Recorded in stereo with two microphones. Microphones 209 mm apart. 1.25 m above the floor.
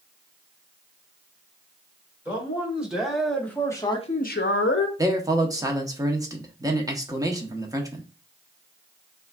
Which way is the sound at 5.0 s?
15° right (ahead or behind).